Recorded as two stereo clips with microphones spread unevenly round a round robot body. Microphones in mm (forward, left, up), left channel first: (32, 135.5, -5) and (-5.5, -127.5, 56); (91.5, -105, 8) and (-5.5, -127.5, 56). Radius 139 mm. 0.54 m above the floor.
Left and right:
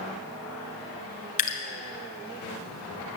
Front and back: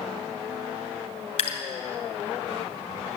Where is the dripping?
20° left, 2.5 m.